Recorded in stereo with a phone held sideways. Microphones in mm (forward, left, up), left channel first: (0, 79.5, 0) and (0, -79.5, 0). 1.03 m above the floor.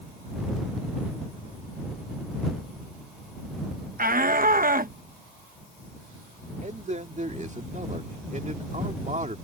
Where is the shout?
65° right (ahead or behind).